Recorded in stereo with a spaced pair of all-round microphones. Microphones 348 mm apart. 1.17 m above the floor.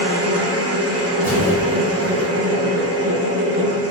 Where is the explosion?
25° right (ahead or behind), 1.8 m.